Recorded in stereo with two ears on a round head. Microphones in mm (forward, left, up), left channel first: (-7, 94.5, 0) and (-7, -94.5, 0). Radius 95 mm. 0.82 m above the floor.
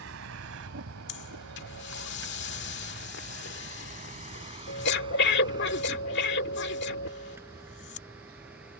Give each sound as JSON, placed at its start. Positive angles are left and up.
{"t": 0.0, "sound": "a vehicle", "side_deg": -70}
{"t": 1.1, "sound": "breathing", "side_deg": 55}